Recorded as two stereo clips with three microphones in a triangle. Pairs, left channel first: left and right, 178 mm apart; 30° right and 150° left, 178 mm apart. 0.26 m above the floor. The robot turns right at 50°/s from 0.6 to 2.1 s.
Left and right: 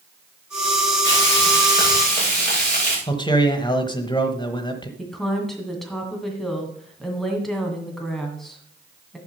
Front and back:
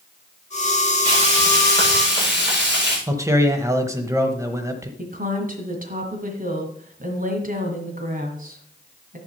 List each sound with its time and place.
1.1 s frying: 85° left, 7.5 m; by 3.0 s 135° left, 7.5 m
3.1 s a man speaking: 100° left, 1.1 m
5.0 s a woman speaking: straight behind, 2 m